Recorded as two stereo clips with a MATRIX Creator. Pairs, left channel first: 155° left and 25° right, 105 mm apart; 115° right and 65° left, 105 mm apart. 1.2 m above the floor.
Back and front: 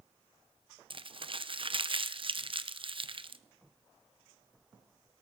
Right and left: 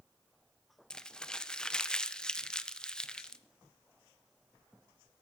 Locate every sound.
0.9 s crumpling: 30° right, 0.7 m